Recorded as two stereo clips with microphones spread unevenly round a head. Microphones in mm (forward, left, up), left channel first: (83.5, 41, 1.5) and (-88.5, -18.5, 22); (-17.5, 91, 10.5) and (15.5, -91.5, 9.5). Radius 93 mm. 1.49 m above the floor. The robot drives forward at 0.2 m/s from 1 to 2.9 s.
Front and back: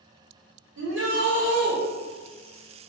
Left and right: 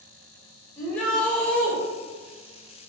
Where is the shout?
175° right, 1.1 m.